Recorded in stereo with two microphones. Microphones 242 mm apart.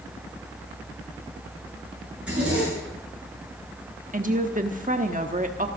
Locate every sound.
2.1 s a zipper: 5° right (ahead or behind), 8.5 m
4.1 s a woman speaking: 35° right (ahead or behind), 1.1 m